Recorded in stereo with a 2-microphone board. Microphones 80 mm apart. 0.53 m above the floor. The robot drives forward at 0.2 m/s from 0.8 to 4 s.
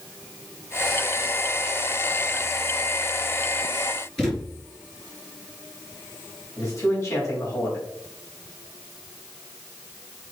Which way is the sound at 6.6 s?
35° left (ahead or behind).